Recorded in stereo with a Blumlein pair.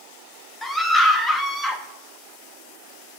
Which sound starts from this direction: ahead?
A scream, at 0.6 s.